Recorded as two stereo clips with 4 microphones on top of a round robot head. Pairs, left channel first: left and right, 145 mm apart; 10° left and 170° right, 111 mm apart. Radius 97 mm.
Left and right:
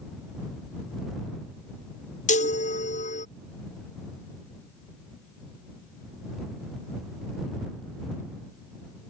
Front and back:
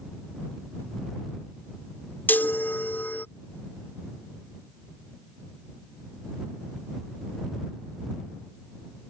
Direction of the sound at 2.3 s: 80° left.